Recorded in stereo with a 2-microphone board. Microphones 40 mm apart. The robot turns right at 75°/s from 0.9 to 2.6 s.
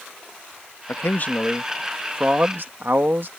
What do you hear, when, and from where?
0.9 s a man speaking: 110° left; by 3.3 s 120° right